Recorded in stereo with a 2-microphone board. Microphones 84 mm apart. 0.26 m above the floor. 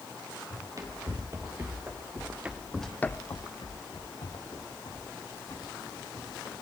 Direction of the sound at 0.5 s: 40° right (ahead or behind).